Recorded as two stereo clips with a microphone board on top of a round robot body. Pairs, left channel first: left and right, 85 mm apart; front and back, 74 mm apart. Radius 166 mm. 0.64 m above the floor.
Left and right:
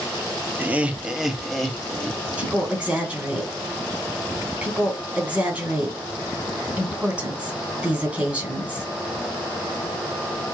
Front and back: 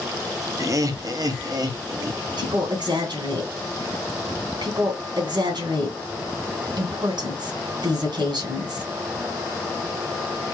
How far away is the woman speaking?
About 3 m.